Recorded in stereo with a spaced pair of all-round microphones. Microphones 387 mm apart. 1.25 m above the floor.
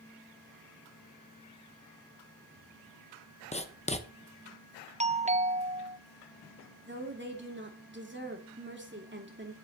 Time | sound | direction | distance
3.5 | writing | 15° left (ahead or behind) | 1.0 m
5.0 | a doorbell | 20° right (ahead or behind) | 0.6 m
6.9 | a woman speaking | 30° right (ahead or behind) | 2.5 m